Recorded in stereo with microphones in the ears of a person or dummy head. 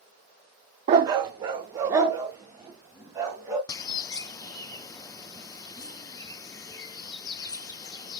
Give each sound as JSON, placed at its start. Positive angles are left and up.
{"t": 0.9, "sound": "a dog barking", "side_deg": -25, "distance_m": 0.8}
{"t": 3.7, "sound": "a bird", "side_deg": 20, "distance_m": 0.6}